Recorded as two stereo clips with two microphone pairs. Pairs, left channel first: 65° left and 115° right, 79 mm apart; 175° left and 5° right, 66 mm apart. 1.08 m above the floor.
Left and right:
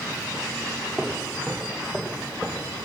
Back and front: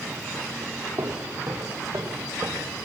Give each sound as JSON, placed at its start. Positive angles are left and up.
{"t": 1.0, "sound": "footsteps", "azimuth_deg": -15, "distance_m": 5.5}